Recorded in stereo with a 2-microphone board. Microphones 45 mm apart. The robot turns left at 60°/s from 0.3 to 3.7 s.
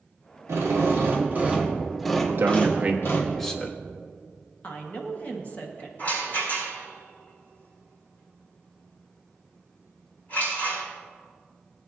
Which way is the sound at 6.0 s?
40° left (ahead or behind).